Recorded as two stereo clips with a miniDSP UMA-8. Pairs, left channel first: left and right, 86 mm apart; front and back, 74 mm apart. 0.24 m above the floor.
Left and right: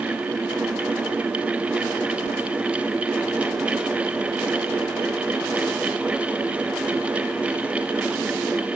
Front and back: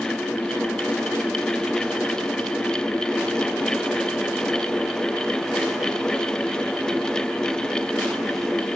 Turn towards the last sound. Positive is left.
No sound to turn to.